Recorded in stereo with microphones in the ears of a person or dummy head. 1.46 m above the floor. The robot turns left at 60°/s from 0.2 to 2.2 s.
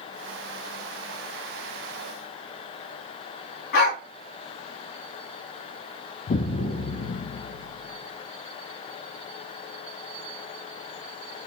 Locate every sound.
3.7 s a dog barking: 55° left (ahead or behind), 2.5 m
6.3 s an explosion: 45° left (ahead or behind), 0.8 m